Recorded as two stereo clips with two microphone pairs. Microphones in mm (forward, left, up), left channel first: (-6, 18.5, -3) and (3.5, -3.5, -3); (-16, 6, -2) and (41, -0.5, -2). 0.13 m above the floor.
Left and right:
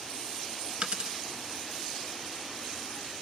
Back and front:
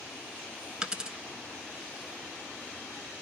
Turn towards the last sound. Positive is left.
turn(degrees=-75)